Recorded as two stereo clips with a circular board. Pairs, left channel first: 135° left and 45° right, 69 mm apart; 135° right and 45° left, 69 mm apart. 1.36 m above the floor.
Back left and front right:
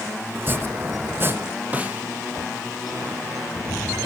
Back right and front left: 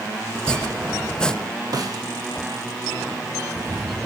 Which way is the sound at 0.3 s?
65° right.